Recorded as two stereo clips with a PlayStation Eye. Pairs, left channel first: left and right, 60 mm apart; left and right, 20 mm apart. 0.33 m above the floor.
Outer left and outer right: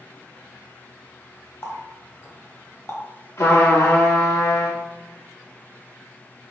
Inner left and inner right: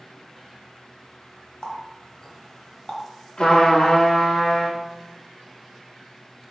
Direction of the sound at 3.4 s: 55° left (ahead or behind).